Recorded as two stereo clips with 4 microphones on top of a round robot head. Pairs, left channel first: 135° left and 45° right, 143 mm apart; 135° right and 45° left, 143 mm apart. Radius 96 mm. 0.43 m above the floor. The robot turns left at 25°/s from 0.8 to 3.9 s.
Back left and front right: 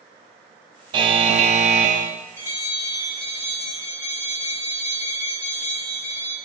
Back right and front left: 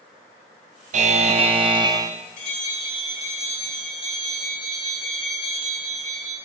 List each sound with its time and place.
0.9 s a buzzer: 10° left, 0.9 m; by 2.1 s 20° right, 0.9 m
2.4 s a bell: 155° right, 5 m; by 6.3 s 170° left, 5 m